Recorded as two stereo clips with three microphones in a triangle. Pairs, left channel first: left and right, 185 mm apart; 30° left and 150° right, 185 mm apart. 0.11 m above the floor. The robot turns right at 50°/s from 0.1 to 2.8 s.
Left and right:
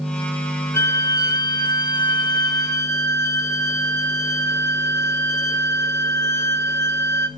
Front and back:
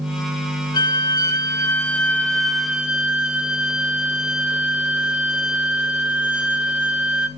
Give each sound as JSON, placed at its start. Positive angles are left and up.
{"t": 0.7, "sound": "a violin", "azimuth_deg": 35, "distance_m": 1.0}